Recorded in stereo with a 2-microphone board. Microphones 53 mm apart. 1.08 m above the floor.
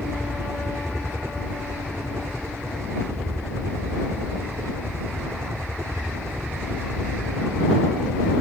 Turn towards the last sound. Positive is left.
turn(degrees=-60)  # may be behind; listen again after turning